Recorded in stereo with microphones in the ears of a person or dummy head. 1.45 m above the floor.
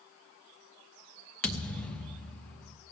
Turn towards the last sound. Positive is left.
turn(degrees=5)  # may be behind; listen again after turning